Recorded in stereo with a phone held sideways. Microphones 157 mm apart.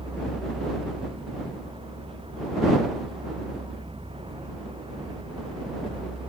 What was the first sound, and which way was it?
A vehicle, 35° right (ahead or behind).